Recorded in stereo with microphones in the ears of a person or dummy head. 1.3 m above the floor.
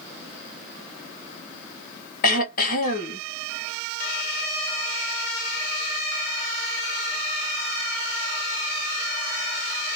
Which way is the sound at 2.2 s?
50° left (ahead or behind).